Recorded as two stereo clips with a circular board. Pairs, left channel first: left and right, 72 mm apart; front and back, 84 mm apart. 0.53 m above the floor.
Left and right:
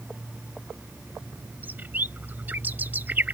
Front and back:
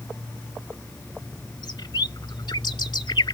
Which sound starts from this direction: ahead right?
A bird, at 1.6 s.